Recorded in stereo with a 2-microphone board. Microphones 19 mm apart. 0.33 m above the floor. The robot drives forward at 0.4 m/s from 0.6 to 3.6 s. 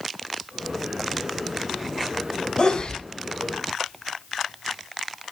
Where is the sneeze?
60° left (ahead or behind), 2.5 m.